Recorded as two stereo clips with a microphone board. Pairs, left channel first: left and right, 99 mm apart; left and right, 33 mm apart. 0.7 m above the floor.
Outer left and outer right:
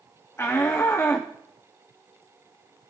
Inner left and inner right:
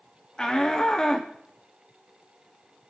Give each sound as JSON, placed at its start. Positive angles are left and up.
{"t": 0.4, "sound": "a shout", "side_deg": 25, "distance_m": 0.8}